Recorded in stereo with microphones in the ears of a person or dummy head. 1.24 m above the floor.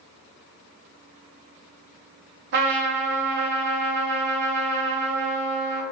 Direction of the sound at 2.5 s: 55° right (ahead or behind).